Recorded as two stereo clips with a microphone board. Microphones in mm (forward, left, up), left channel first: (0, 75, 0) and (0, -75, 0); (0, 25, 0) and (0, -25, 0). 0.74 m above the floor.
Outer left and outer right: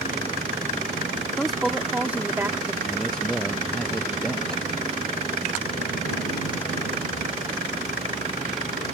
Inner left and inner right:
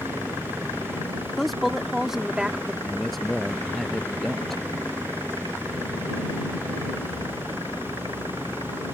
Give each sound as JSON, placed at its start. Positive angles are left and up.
{"t": 1.4, "sound": "a woman speaking", "side_deg": 5}
{"t": 2.8, "sound": "a man speaking", "side_deg": 5}